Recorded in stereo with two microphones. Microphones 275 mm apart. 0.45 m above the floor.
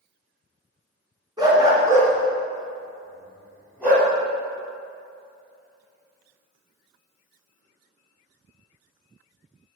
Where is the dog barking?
15° right (ahead or behind), 2.5 m; by 4.1 s 5° right (ahead or behind), 5 m.